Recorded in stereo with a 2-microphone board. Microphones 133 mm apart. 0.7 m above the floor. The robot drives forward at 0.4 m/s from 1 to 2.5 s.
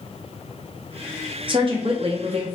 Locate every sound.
1.5 s a woman speaking: 40° right (ahead or behind), 0.7 m; by 2.5 s 45° right (ahead or behind), 0.6 m